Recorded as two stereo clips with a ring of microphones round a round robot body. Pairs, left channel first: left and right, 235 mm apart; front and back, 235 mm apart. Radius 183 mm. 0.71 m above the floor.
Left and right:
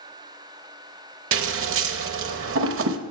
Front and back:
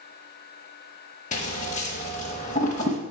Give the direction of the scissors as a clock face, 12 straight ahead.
2 o'clock.